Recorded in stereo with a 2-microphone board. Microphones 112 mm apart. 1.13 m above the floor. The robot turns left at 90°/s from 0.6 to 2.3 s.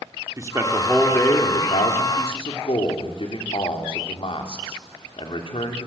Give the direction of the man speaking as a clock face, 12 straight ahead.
5 o'clock.